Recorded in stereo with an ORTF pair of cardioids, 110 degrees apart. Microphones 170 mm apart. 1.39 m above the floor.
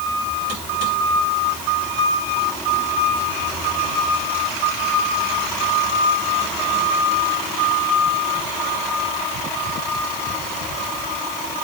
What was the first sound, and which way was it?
Only background noise.